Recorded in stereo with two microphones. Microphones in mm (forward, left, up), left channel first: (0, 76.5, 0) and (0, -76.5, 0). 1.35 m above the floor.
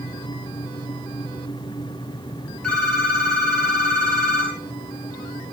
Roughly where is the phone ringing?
Centre.